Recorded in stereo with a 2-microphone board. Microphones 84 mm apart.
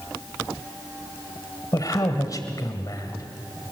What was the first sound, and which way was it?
A man speaking, 45° left (ahead or behind).